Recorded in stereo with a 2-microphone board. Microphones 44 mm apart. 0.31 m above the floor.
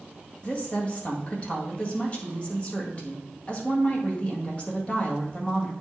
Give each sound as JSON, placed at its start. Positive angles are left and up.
{"t": 0.4, "sound": "a woman speaking", "side_deg": 30, "distance_m": 1.8}